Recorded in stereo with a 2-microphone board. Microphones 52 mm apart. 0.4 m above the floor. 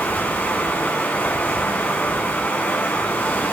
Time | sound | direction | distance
0.0 | running water | 30° left (ahead or behind) | 2 m